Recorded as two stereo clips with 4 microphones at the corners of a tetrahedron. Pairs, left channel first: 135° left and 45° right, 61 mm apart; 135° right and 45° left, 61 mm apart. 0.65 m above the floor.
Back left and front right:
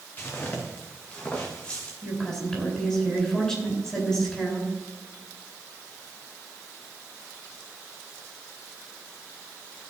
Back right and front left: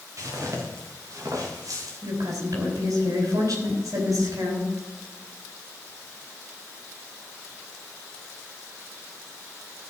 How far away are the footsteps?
About 3.5 m.